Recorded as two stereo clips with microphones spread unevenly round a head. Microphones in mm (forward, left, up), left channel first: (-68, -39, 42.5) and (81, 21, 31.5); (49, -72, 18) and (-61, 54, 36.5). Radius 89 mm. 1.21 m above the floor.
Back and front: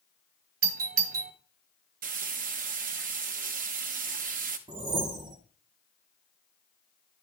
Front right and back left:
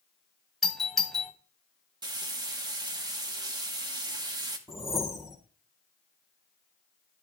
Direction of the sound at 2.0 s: 65° left.